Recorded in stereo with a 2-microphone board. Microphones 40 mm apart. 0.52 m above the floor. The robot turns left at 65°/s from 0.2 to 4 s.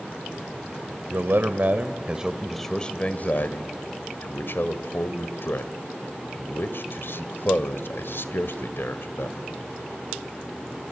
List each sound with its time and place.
1.1 s a man speaking: 70° right (ahead or behind), 1.7 m; by 9.4 s 70° left (ahead or behind), 1.7 m